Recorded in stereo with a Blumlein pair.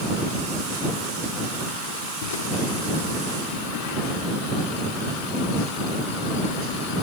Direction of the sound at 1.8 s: 60° left.